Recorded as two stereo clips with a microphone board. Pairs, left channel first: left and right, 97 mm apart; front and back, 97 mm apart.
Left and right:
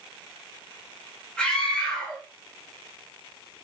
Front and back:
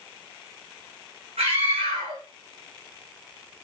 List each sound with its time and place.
1.4 s a scream: 170° left, 4 m